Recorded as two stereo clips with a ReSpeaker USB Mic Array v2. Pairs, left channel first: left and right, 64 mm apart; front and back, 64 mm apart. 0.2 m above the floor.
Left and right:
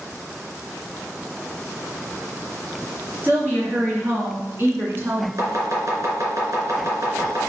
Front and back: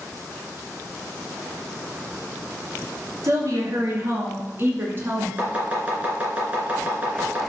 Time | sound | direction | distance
3.2 | a woman speaking | 150° right | 3 m
5.4 | chopping | 115° right | 2.5 m